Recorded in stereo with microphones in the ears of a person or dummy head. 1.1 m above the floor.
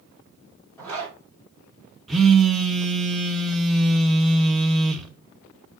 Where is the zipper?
5° left (ahead or behind), 3 m.